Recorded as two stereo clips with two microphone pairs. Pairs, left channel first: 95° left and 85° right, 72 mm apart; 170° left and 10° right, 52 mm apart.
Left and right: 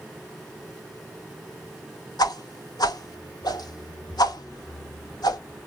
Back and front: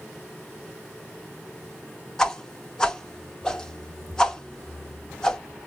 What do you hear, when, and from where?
2.2 s a whoosh: 100° left, 0.5 m